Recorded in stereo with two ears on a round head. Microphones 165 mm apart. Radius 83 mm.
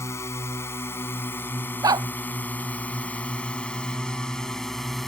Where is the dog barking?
20° right (ahead or behind).